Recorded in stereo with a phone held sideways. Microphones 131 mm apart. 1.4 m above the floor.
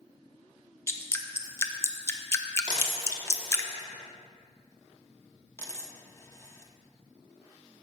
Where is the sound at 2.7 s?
35° right (ahead or behind), 1.5 m.